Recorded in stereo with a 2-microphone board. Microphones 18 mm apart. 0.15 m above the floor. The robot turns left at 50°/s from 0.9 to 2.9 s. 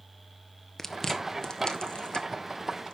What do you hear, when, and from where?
0.8 s chewing: 15° left (ahead or behind), 1.3 m; by 3.0 s 55° left (ahead or behind), 1.3 m